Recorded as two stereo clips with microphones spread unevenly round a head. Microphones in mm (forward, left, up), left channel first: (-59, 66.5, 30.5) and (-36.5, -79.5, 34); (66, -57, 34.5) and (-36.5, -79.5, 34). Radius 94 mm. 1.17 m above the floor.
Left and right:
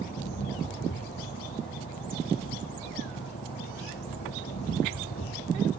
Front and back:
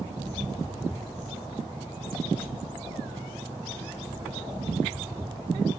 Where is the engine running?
115° left.